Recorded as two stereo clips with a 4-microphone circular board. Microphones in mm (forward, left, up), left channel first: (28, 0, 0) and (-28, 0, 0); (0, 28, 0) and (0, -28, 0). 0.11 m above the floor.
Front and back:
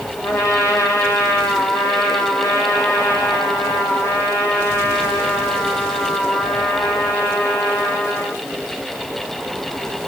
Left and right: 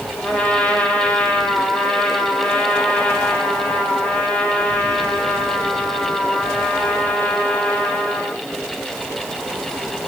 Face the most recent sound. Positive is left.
turn(degrees=25)